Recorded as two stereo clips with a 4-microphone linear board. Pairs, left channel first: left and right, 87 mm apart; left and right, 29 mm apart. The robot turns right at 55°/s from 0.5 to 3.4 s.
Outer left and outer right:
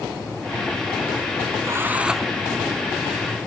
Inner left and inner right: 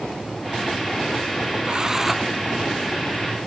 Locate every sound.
1.6 s a drill: 35° right; by 2.3 s straight ahead